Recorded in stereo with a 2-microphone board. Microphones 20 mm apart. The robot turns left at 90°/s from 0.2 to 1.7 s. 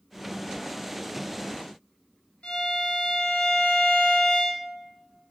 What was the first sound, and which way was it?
A violin, 75° left (ahead or behind).